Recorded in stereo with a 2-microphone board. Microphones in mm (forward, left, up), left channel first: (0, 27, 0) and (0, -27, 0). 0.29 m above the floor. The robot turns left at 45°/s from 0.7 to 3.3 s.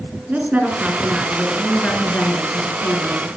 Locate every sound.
0.3 s a woman speaking: 150° right, 4 m; by 3.4 s 95° left, 4 m